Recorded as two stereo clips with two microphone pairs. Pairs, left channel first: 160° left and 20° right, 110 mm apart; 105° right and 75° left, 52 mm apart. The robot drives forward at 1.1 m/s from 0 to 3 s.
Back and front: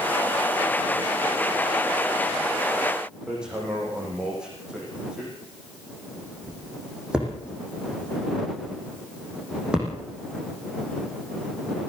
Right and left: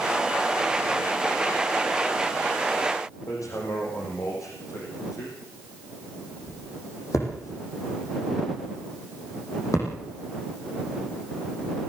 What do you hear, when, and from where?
3.3 s hammering: 100° right, 6.5 m